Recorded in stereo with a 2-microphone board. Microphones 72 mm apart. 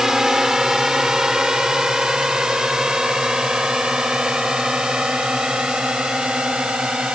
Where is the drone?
5° right (ahead or behind); by 7.2 s 10° right (ahead or behind).